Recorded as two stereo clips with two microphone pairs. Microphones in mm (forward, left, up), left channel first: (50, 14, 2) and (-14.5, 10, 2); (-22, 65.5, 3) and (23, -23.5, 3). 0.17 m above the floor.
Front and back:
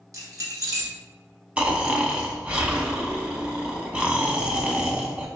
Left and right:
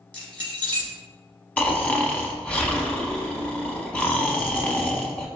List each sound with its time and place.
0.1 s keys jangling: 165° right, 2.0 m
1.6 s snoring: 155° left, 0.6 m